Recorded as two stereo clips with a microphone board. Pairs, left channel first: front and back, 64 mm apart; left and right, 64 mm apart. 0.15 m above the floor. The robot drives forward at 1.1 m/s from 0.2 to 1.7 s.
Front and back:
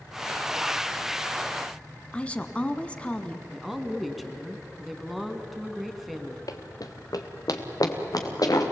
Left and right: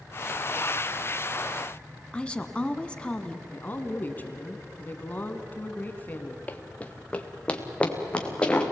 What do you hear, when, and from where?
2.1 s a woman speaking: 40° left, 1.2 m
3.5 s a woman speaking: 90° left, 1.7 m
6.5 s running footsteps: 25° left, 1.5 m; by 8.7 s 15° left, 4 m